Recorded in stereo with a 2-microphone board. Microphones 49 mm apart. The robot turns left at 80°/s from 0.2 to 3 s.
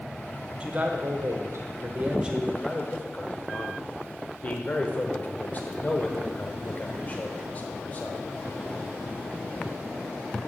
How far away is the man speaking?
About 1.1 m.